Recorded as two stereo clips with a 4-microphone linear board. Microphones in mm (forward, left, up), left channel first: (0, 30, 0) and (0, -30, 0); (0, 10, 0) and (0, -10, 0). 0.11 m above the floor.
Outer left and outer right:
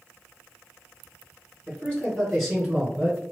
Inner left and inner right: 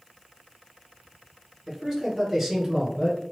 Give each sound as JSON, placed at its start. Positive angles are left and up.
{"t": 1.7, "sound": "a man speaking", "side_deg": 20, "distance_m": 2.0}